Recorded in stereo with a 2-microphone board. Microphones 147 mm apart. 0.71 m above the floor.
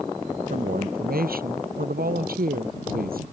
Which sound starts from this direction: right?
A woman speaking, at 0.5 s.